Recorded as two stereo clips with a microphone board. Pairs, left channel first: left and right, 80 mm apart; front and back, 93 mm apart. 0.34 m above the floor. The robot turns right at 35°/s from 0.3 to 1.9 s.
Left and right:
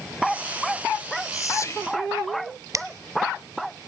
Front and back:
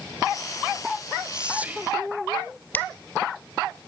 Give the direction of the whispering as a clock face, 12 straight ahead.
9 o'clock.